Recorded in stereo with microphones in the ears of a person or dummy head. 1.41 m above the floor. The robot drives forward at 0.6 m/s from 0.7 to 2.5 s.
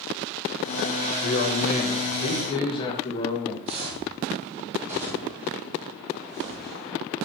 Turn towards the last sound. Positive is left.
turn(degrees=5)  # may be behind; listen again after turning